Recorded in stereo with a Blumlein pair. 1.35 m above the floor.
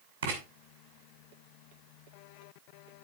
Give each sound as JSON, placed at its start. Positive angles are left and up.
{"t": 0.2, "sound": "writing", "azimuth_deg": -60, "distance_m": 7.0}